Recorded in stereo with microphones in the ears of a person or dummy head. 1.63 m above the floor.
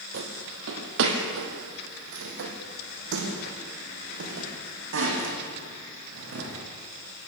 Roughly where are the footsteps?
Right.